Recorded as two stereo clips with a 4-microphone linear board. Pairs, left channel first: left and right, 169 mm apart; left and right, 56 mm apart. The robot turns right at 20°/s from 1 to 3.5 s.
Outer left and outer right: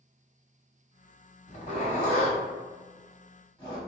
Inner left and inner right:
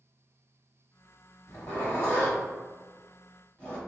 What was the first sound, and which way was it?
A zipper, 45° left (ahead or behind).